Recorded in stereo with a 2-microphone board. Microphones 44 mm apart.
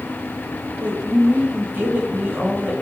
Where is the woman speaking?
45° right (ahead or behind), 1.6 m.